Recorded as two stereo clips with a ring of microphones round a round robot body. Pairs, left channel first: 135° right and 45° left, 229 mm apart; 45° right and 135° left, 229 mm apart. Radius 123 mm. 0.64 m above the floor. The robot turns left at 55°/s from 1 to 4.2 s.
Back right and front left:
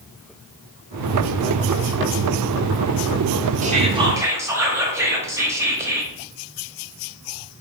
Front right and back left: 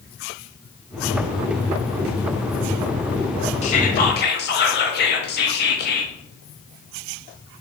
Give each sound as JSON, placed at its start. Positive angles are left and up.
{"t": 3.6, "sound": "whispering", "azimuth_deg": 5, "distance_m": 0.7}